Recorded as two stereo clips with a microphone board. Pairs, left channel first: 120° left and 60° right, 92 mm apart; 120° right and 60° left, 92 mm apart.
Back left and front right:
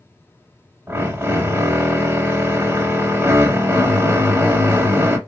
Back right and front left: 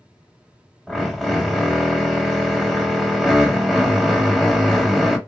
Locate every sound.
0.9 s a drill: 35° right, 0.9 m